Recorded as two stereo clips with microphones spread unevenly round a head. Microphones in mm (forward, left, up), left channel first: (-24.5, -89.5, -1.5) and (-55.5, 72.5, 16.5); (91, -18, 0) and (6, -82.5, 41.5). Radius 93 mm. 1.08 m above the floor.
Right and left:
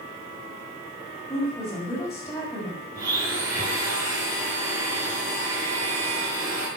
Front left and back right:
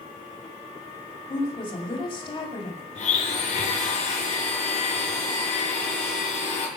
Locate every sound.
1.3 s a woman speaking: straight ahead, 6.5 m
3.0 s a blender: 25° left, 6.5 m